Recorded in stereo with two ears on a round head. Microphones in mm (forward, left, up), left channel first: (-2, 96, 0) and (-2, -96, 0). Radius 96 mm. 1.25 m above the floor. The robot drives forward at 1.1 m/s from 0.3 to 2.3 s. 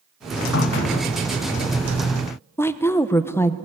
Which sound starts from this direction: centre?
A woman speaking, at 2.6 s.